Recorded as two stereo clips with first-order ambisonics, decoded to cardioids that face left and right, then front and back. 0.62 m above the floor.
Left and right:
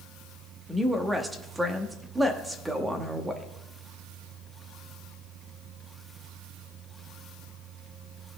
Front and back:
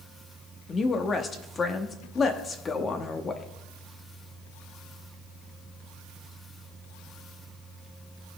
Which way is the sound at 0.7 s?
25° right.